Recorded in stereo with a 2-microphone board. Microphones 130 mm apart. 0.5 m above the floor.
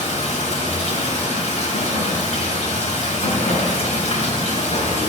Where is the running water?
60° left (ahead or behind), 3 m.